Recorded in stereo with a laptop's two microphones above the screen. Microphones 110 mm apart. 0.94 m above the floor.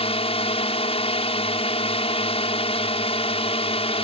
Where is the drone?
60° left (ahead or behind).